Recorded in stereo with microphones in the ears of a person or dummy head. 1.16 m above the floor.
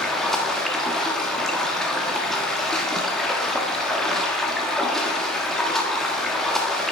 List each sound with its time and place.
0.0 s running water: 5° left (ahead or behind), 1.2 m